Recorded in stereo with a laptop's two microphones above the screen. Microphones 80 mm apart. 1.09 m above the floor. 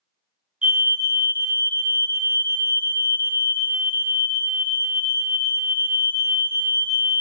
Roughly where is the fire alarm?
Centre.